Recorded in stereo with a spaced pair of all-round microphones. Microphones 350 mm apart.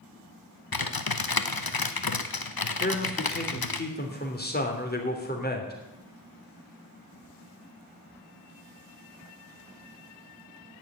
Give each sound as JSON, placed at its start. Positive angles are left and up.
{"t": 0.7, "sound": "typing on a keyboard", "side_deg": 80, "distance_m": 0.9}
{"t": 2.8, "sound": "a man speaking", "side_deg": 25, "distance_m": 3.0}